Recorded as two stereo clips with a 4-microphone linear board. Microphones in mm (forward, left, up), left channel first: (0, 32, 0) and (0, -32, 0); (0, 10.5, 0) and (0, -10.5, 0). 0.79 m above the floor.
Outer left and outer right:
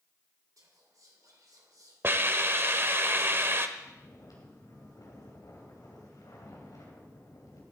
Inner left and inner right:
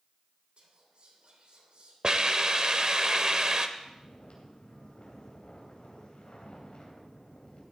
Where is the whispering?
65° right (ahead or behind), 3 m.